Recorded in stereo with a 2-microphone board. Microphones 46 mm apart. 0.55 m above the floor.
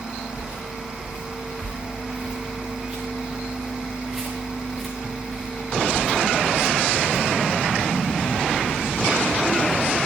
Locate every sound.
0.3 s footsteps: 45° right (ahead or behind), 5 m; by 7.3 s 35° left (ahead or behind), 4 m